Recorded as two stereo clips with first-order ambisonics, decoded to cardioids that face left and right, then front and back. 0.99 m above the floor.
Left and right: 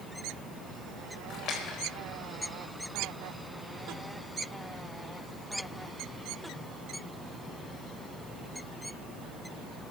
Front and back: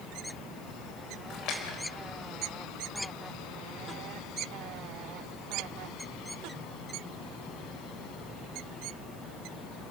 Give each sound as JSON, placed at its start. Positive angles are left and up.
{"t": 1.3, "sound": "a splash", "azimuth_deg": 40, "distance_m": 4.0}